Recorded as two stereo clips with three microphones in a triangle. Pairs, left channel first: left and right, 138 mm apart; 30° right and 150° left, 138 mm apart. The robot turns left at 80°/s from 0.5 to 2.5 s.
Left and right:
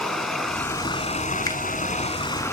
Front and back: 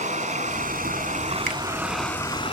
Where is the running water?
Straight behind, 2 m; by 2.5 s 20° left, 2 m.